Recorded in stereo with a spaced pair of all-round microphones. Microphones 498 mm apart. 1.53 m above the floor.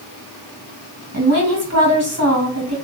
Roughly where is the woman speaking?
Right.